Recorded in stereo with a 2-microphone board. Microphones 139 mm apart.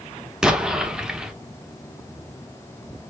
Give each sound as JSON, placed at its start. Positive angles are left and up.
{"t": 0.4, "sound": "an explosion", "side_deg": -5, "distance_m": 0.7}